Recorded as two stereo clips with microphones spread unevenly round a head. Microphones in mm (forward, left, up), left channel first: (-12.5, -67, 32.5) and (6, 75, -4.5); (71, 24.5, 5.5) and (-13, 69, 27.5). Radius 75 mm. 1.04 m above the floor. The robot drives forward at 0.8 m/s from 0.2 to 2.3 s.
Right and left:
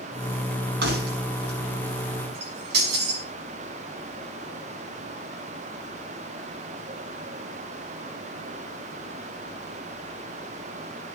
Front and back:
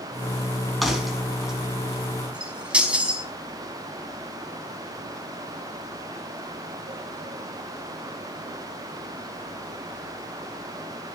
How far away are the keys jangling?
About 5.5 m.